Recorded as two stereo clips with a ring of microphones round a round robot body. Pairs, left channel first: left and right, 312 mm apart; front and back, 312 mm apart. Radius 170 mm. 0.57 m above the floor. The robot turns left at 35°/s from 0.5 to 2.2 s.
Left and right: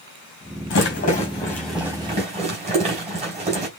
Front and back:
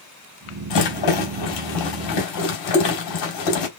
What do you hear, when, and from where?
0.7 s a rattle: 35° left, 3.5 m; by 3.7 s 20° right, 3.5 m